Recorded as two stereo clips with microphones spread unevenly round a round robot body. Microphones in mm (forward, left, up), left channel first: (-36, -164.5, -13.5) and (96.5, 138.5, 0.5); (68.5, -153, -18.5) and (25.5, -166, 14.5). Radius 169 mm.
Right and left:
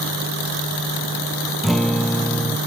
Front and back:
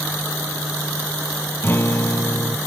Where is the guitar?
25° right.